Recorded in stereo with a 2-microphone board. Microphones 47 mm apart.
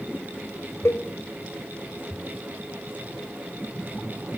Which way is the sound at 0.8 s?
80° left.